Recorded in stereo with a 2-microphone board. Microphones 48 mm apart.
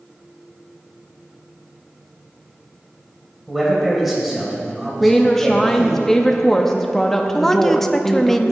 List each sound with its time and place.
3.5 s a man speaking: centre (ahead or behind), 3 m
5.0 s a woman speaking: 10° left (ahead or behind), 0.6 m
7.3 s a woman speaking: 5° left (ahead or behind), 0.5 m